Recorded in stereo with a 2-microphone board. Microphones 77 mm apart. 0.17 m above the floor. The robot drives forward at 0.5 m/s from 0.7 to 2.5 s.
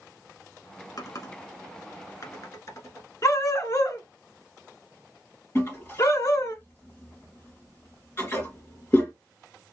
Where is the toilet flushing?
30° left (ahead or behind), 2.5 m.